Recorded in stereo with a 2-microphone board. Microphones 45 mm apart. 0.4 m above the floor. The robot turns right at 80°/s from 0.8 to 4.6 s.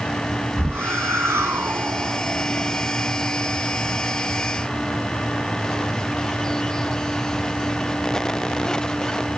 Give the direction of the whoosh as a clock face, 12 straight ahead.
4 o'clock.